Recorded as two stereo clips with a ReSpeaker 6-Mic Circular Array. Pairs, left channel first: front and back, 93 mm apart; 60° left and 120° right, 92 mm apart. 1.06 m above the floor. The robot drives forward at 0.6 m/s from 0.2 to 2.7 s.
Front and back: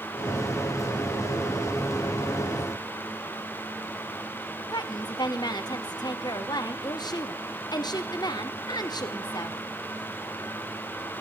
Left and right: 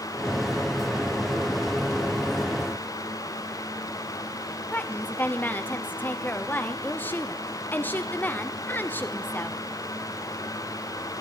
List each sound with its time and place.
4.7 s a woman speaking: 5° right, 0.6 m